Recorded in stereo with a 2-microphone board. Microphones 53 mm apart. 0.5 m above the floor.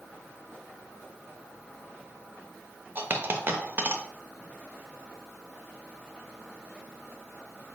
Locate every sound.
3.0 s a dropped coin: 40° right (ahead or behind), 0.6 m